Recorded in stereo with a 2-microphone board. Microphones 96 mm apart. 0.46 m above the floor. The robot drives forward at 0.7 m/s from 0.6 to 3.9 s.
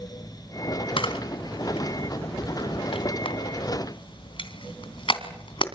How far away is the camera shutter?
About 2.5 m.